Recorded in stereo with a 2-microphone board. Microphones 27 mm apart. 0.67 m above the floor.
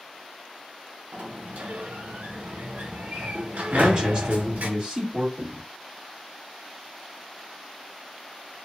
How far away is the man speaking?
About 1.8 m.